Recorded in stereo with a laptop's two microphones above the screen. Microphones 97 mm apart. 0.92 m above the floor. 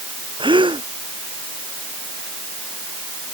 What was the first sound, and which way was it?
A gasp, 60° right (ahead or behind).